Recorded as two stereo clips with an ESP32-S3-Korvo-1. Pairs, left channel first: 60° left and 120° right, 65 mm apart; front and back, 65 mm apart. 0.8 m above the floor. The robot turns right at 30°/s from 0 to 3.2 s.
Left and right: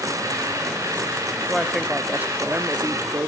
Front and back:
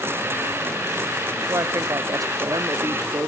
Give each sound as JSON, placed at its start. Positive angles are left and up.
{"t": 1.5, "sound": "a woman speaking", "azimuth_deg": 155, "distance_m": 1.0}